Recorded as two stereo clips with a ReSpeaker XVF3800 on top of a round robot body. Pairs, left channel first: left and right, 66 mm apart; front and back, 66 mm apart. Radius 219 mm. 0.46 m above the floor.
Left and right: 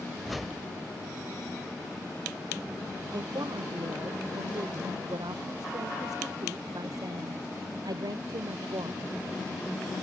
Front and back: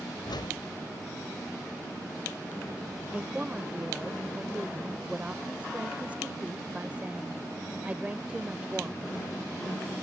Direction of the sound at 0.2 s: Straight ahead.